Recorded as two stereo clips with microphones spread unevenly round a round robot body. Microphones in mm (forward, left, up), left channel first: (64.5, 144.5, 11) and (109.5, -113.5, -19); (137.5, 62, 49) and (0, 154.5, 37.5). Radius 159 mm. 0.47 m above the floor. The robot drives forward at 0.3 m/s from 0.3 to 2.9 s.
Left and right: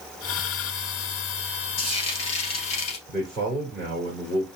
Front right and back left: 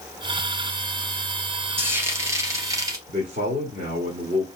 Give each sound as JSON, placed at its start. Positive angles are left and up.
{"t": 1.8, "sound": "frying", "azimuth_deg": 70, "distance_m": 2.5}
{"t": 3.1, "sound": "a man speaking", "azimuth_deg": 175, "distance_m": 1.1}